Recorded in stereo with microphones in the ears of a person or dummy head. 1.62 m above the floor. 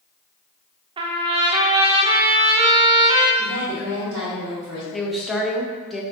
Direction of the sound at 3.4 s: 20° right (ahead or behind).